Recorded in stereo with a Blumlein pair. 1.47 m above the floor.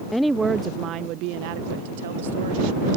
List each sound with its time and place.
0.1 s a woman speaking: 5° left; by 2.9 s 65° right